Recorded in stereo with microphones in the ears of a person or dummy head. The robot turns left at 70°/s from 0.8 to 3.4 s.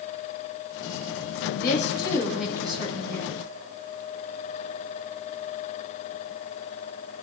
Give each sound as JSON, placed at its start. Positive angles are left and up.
{"t": 1.6, "sound": "a woman speaking", "azimuth_deg": 60, "distance_m": 7.0}